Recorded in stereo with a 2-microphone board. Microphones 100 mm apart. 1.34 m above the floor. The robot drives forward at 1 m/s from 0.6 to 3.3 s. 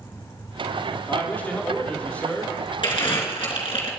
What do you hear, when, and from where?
1.1 s a man speaking: 20° left (ahead or behind), 3 m; by 2.5 s 10° left (ahead or behind), 4.5 m
2.8 s crumpling: 55° left (ahead or behind), 4 m; by 3.9 s 60° left (ahead or behind), 4 m